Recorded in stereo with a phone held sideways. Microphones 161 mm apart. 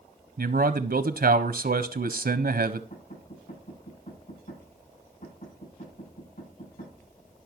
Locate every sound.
0.4 s a man speaking: 75° right (ahead or behind), 0.6 m
2.9 s knocking: 65° left (ahead or behind), 8.5 m